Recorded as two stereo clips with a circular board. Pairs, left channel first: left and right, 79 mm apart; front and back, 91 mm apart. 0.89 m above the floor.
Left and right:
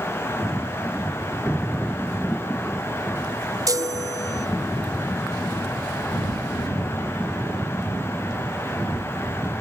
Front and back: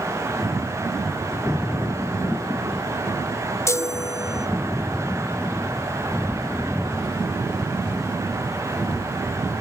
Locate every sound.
3.7 s a chime: 55° right, 0.6 m